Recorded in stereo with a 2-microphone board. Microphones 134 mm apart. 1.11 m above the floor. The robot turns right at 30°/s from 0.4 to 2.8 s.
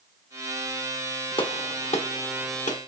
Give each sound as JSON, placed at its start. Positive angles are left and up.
{"t": 1.4, "sound": "a gunshot", "side_deg": 40, "distance_m": 0.8}